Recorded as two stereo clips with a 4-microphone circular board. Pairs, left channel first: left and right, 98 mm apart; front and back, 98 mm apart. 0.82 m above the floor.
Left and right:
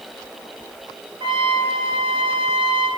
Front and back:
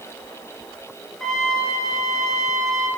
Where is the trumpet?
85° right, 1.6 m.